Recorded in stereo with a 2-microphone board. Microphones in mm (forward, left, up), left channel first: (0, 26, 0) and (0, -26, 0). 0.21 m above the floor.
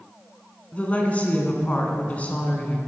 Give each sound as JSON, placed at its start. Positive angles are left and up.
{"t": 0.7, "sound": "a woman speaking", "side_deg": 30, "distance_m": 1.8}